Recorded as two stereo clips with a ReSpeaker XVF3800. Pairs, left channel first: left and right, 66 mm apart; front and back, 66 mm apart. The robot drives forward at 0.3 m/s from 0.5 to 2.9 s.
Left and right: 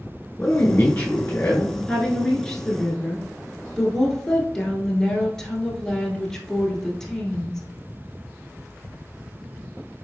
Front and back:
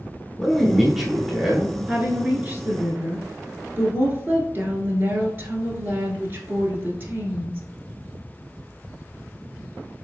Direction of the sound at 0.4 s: 80° left.